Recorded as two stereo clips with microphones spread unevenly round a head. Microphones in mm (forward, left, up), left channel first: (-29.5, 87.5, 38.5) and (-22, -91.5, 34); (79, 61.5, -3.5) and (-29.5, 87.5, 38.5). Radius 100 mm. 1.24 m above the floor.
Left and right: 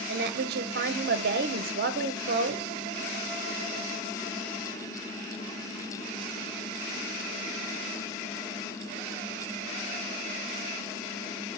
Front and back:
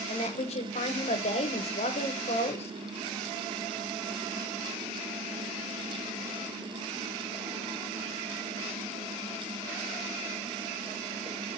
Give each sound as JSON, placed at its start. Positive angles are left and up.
{"t": 0.1, "sound": "a woman speaking", "azimuth_deg": -50, "distance_m": 0.6}